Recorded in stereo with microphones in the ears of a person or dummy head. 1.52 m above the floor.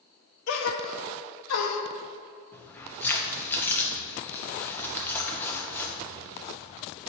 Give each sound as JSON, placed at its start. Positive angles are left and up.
{"t": 0.5, "sound": "a gasp", "side_deg": 80, "distance_m": 1.0}
{"t": 2.5, "sound": "keys jangling", "side_deg": 10, "distance_m": 0.8}